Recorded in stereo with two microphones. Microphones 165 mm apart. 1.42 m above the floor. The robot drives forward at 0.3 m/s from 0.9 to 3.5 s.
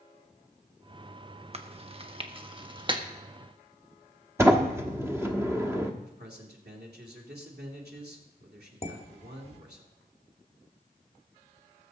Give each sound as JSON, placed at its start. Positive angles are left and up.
{"t": 1.5, "sound": "chewing", "side_deg": -40, "distance_m": 1.0}
{"t": 4.4, "sound": "a sliding door", "side_deg": -15, "distance_m": 1.2}
{"t": 6.0, "sound": "a man speaking", "side_deg": -80, "distance_m": 3.0}
{"t": 8.8, "sound": "dishes clattering", "side_deg": 40, "distance_m": 1.8}